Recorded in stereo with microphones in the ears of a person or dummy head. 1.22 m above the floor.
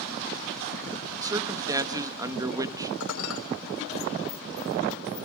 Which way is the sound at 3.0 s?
75° left (ahead or behind).